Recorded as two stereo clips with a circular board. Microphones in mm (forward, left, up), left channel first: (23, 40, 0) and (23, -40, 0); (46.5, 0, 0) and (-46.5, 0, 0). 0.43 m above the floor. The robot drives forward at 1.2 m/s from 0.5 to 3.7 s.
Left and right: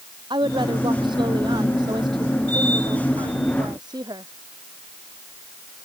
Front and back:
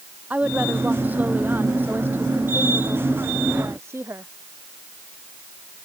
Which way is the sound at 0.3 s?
105° right.